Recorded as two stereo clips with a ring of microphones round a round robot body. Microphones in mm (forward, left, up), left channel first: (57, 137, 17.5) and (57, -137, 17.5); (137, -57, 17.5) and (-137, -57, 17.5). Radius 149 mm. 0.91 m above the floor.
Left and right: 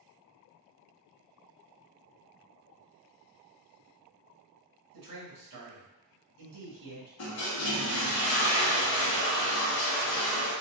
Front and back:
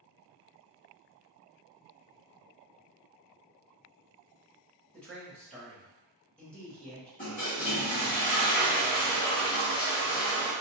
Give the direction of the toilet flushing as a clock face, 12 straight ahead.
10 o'clock.